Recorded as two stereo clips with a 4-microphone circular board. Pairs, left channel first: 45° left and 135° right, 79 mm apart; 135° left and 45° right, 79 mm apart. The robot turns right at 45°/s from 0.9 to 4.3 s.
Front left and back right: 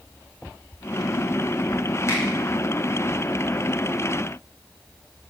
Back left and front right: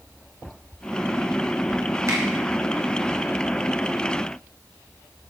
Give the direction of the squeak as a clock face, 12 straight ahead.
No squeak in this recording.